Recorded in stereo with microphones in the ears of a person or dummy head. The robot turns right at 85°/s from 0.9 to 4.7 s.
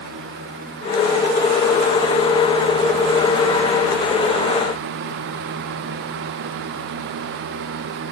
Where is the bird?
I don't hear a bird.